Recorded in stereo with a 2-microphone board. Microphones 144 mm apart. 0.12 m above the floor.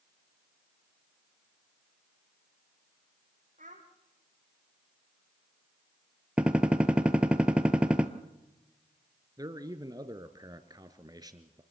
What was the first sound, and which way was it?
A child speaking, 60° right (ahead or behind).